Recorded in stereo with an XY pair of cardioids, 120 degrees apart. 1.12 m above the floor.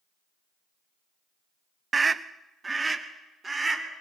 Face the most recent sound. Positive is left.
turn(degrees=-20)